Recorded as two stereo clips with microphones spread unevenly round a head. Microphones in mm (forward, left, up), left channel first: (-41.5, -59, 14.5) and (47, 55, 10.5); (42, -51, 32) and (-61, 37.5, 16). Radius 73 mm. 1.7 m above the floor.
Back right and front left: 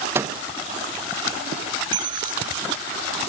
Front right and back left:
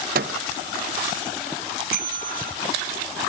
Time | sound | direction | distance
0.1 | a microwave | 125° left | 1.1 m
1.9 | a bell | 110° left | 3 m